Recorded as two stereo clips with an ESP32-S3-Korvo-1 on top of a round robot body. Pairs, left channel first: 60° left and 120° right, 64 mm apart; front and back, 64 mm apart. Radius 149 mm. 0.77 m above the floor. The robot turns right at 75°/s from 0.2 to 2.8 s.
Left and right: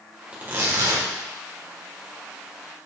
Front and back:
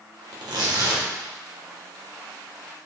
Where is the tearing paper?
170° left, 1.4 m; by 1.1 s 135° right, 1.4 m.